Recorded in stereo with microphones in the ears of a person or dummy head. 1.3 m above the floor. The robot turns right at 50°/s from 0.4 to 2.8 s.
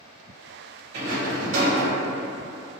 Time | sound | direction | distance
0.9 | a rattle | 130° right | 1.7 m